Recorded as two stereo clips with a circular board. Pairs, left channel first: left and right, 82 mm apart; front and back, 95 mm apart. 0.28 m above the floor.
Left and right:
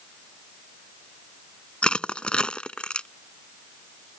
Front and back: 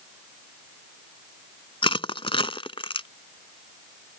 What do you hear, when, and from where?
1.8 s crushing: 15° left